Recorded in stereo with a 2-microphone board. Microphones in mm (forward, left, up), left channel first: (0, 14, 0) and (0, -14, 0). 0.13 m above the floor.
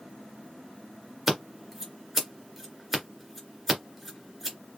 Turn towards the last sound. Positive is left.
turn(degrees=-10)  # may be behind; listen again after turning